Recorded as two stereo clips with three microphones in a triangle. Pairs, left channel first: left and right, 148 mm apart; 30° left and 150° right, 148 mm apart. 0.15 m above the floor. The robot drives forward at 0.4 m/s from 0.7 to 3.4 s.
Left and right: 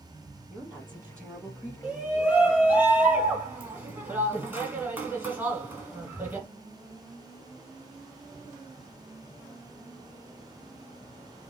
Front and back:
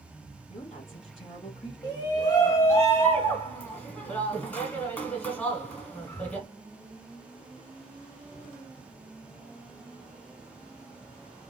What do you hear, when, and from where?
0.5 s a woman speaking: 15° right, 3.5 m
1.8 s a shout: 15° right, 1.5 m; by 6.5 s 35° right, 1.1 m